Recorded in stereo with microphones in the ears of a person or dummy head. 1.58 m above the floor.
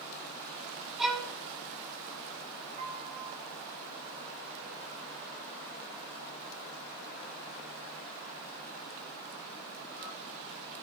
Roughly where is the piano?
Right.